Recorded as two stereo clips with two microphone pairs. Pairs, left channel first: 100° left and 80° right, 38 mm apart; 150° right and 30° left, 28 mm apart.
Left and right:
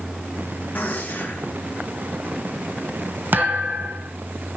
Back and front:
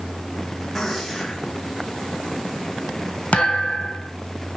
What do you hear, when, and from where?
0.8 s a gunshot: 140° left, 5.5 m
3.3 s a thud: 110° right, 2 m